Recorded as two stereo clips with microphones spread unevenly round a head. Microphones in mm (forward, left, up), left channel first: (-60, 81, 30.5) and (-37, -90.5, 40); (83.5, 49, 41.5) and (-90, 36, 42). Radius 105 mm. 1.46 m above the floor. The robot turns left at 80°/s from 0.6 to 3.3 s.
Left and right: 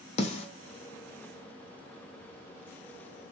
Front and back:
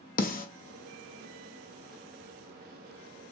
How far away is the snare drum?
About 0.6 m.